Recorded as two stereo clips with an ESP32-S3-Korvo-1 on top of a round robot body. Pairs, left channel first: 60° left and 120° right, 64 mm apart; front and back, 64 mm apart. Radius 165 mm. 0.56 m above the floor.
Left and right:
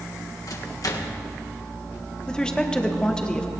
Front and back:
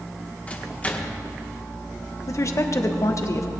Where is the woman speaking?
15° right, 1.6 m.